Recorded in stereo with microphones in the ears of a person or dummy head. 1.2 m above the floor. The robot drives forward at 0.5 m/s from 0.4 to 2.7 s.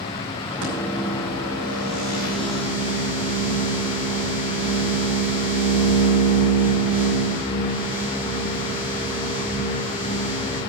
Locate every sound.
0.6 s a microwave: 60° right (ahead or behind), 3 m; by 10.6 s 45° right (ahead or behind), 3.5 m